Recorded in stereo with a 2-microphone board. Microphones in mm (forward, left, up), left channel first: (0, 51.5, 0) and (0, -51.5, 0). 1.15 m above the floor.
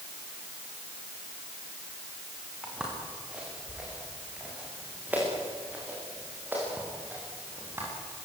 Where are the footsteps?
5° right (ahead or behind), 8 m; by 7.9 s 20° right (ahead or behind), 11.5 m.